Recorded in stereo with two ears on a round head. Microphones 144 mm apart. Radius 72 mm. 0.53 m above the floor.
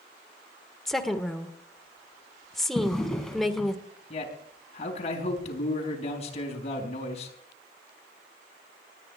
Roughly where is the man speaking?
Left.